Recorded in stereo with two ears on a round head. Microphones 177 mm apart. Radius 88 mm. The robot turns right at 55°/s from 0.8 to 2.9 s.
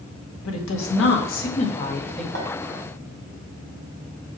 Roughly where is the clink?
Right.